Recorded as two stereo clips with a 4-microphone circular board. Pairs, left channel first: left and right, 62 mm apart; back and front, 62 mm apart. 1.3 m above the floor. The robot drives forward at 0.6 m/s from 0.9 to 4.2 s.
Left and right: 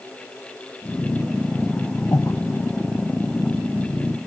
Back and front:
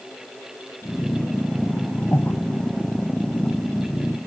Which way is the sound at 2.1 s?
125° left.